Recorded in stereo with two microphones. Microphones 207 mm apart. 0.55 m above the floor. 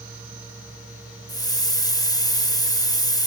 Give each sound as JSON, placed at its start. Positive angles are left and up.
{"t": 1.3, "sound": "a hiss", "side_deg": 20, "distance_m": 0.6}